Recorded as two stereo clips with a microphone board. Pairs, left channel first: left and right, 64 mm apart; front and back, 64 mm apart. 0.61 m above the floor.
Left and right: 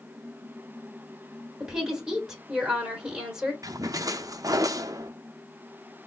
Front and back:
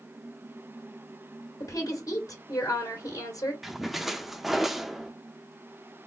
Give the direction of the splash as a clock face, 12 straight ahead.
3 o'clock.